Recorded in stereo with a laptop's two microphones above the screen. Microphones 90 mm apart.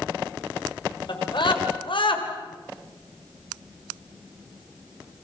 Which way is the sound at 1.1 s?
60° left (ahead or behind).